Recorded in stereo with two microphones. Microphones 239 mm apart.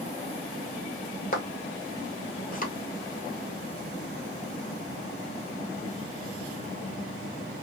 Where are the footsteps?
35° left (ahead or behind), 1.2 m.